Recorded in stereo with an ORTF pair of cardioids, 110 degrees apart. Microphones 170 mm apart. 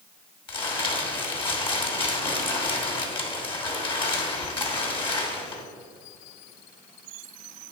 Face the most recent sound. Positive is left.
turn(degrees=30)